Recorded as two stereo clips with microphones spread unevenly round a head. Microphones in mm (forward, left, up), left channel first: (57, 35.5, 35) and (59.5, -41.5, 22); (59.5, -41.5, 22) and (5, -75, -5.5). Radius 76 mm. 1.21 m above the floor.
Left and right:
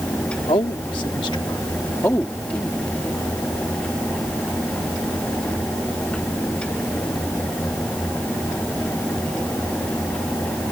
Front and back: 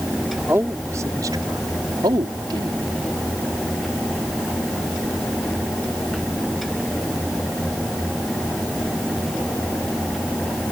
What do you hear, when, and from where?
0.5 s a man speaking: 135° left; by 2.8 s 175° left